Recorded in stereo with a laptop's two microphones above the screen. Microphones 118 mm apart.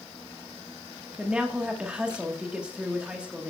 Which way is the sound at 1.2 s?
10° right (ahead or behind).